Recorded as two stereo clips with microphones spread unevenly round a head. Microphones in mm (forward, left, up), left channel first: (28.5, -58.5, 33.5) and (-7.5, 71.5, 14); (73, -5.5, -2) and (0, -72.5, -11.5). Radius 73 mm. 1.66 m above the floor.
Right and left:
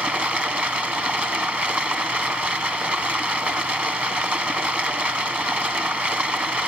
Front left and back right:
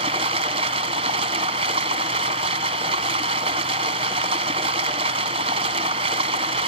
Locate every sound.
0.0 s running water: 165° right, 0.7 m